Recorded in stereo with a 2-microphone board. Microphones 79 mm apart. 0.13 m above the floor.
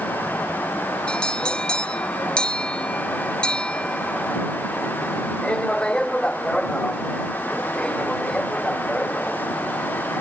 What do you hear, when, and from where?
1.1 s a bell: 10° left (ahead or behind)